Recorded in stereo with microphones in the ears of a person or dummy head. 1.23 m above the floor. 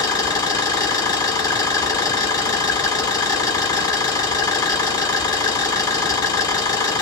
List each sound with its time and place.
0.0 s an engine running: 20° left (ahead or behind), 1.4 m